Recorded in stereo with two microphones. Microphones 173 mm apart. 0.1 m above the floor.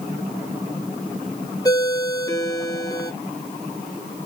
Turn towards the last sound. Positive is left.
turn(degrees=20)  # may be behind; listen again after turning